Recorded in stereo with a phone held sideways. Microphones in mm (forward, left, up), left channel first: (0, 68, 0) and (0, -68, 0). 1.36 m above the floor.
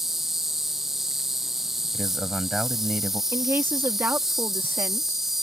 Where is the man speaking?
5° right (ahead or behind).